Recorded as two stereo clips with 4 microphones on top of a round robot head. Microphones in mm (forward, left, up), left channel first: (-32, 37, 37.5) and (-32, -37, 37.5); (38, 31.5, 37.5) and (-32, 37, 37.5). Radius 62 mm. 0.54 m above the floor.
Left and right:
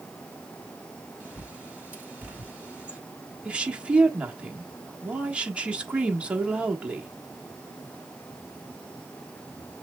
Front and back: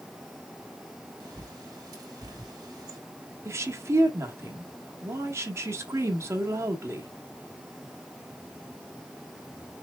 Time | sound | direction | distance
1.2 | a bird | 160° right | 2.5 m
3.5 | a woman speaking | 155° right | 1.3 m